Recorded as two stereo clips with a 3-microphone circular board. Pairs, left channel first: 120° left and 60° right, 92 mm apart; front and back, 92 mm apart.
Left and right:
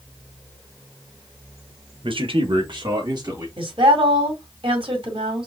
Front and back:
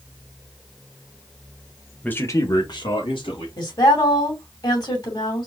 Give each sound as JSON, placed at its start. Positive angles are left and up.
{"t": 2.0, "sound": "a man speaking", "azimuth_deg": -75, "distance_m": 1.0}
{"t": 3.6, "sound": "a woman speaking", "azimuth_deg": -40, "distance_m": 2.5}